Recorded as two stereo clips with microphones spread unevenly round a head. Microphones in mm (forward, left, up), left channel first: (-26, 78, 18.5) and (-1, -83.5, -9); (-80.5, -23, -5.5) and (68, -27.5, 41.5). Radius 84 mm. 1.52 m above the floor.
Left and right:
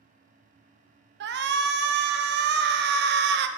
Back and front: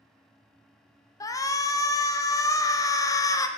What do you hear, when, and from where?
1.2 s a shout: 105° right, 0.5 m